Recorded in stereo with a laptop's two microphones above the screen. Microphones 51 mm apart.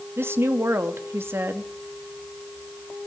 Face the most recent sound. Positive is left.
turn(degrees=-50)  # may be behind; listen again after turning